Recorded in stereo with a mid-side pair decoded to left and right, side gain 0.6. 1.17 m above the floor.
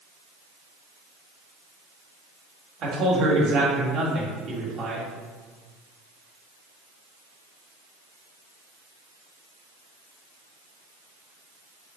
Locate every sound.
2.8 s a man speaking: 55° right, 1.5 m